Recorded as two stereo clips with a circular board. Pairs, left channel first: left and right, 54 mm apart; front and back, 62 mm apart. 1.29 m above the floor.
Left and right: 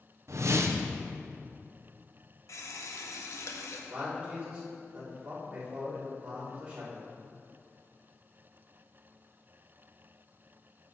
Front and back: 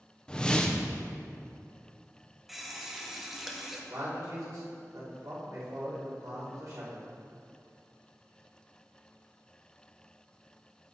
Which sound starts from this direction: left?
A running tap, at 2.5 s.